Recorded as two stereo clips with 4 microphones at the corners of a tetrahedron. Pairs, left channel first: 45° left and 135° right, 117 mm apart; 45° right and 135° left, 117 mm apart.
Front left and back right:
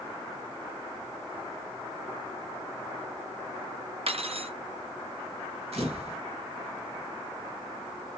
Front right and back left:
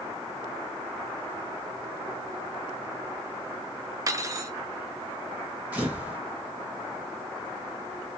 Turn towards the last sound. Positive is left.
turn(degrees=-150)